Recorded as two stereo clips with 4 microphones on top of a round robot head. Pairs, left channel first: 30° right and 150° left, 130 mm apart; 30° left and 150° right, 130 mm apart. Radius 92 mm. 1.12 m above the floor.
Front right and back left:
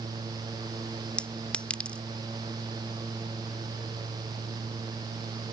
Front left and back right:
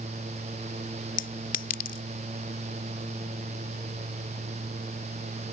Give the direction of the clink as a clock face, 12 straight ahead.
10 o'clock.